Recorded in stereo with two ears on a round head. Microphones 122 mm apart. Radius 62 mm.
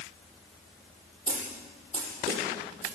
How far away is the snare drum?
About 8.5 m.